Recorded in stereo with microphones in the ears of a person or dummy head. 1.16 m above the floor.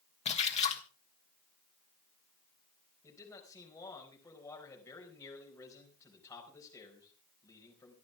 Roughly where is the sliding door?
I don't hear a sliding door.